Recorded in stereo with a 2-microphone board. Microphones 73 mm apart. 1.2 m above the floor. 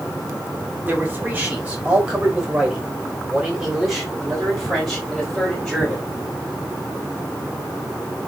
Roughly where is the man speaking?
Right.